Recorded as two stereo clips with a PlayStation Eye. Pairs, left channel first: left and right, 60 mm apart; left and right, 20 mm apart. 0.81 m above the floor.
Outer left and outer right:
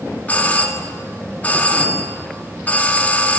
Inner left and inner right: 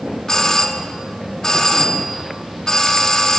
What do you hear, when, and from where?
0.3 s a doorbell: 25° left (ahead or behind), 1.7 m